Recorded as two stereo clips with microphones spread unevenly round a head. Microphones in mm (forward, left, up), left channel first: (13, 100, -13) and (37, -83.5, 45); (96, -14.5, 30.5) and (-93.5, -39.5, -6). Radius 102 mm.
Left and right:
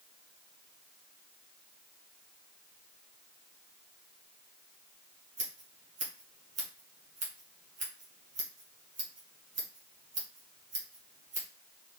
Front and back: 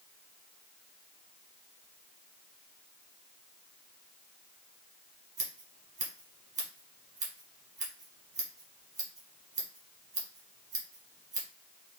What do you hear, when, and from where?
5.4 s scissors: 120° right, 1.7 m